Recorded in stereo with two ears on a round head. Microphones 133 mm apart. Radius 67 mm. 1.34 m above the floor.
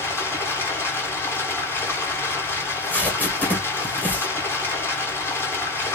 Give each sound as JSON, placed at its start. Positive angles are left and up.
{"t": 0.0, "sound": "running water", "side_deg": 15, "distance_m": 2.0}
{"t": 2.6, "sound": "tape being pulled", "side_deg": 10, "distance_m": 2.0}